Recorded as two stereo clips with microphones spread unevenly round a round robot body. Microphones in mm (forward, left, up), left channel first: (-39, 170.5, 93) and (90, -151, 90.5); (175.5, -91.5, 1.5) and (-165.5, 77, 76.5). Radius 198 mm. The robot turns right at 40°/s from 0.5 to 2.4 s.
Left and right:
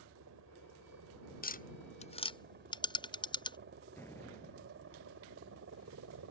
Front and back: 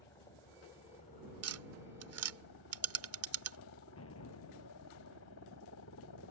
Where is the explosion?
30° left.